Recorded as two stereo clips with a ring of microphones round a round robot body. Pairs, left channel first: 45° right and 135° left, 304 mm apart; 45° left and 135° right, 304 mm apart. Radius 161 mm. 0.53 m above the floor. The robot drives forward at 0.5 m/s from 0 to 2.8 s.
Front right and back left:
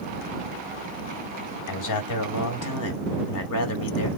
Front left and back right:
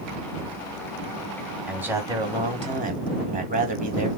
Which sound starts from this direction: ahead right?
A man speaking, at 1.7 s.